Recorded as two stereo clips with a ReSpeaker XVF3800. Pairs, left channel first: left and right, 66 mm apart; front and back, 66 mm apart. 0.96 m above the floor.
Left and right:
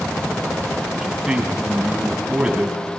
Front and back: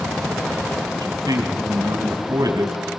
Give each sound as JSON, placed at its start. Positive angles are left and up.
{"t": 0.9, "sound": "a man speaking", "azimuth_deg": -170, "distance_m": 6.0}